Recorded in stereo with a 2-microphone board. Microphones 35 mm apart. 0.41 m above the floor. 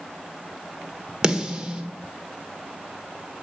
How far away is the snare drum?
About 1.4 m.